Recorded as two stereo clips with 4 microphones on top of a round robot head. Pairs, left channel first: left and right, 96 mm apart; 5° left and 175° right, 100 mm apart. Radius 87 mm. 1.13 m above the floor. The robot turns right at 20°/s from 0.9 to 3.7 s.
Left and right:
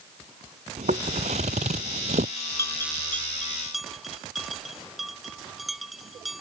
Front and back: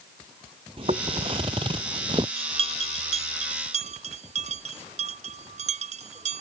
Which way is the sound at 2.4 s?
155° left.